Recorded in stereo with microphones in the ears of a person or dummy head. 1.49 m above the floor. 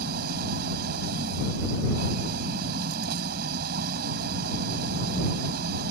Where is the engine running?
60° right (ahead or behind).